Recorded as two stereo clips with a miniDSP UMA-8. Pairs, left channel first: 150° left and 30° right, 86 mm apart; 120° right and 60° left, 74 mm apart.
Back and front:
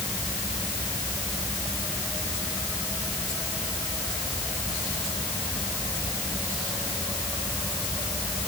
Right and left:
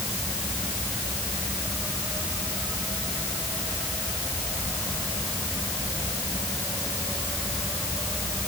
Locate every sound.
Only background noise.